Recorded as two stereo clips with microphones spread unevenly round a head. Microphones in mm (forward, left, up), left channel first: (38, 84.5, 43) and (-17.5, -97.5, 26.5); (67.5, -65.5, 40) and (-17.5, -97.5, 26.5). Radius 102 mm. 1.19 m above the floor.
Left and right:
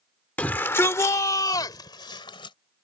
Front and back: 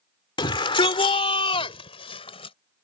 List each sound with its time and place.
0.4 s a shout: 10° right; by 2.5 s 5° left